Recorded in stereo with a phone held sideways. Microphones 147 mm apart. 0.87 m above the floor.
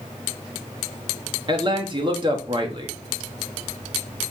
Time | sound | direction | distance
1.5 | a man speaking | 35° right (ahead or behind) | 1.3 m